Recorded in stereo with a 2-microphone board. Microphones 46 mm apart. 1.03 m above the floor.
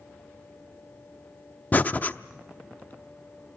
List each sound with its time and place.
1.7 s breathing: 35° left (ahead or behind), 0.7 m